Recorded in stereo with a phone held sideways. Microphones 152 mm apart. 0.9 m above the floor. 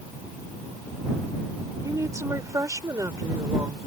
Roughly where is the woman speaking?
Right.